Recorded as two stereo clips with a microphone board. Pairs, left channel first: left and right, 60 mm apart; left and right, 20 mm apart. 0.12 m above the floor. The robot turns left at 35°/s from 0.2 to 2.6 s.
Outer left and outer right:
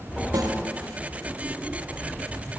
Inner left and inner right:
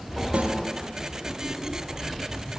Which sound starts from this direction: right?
A snare drum, at 0.3 s.